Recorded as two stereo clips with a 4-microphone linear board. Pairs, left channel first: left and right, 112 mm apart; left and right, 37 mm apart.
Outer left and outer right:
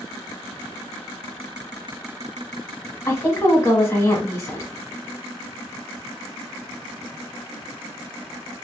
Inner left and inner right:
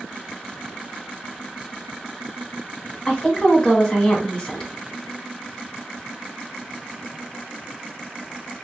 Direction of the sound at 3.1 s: 25° left (ahead or behind).